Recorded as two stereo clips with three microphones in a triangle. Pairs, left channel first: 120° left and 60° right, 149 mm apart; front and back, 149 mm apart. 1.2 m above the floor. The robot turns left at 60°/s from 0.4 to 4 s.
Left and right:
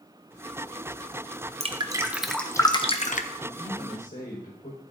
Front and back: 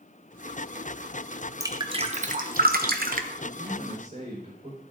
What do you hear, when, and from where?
1.6 s dripping: 110° right, 0.8 m; by 3.3 s 150° left, 0.8 m
3.4 s a man speaking: 175° right, 4.5 m; by 4.8 s 150° left, 4.5 m